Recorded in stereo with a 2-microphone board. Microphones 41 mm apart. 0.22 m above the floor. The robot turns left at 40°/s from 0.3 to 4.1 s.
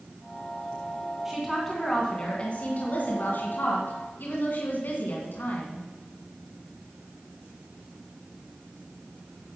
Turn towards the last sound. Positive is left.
turn(degrees=75)